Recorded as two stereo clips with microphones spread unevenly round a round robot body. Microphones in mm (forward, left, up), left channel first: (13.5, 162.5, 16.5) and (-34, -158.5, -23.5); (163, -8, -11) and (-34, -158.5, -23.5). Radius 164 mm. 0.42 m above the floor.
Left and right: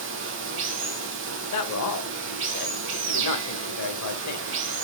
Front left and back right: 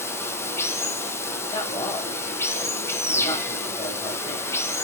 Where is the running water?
40° right, 2.5 m.